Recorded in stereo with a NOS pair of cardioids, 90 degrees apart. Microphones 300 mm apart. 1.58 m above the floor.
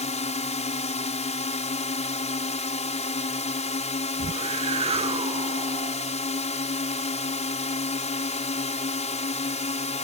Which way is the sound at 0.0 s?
25° left.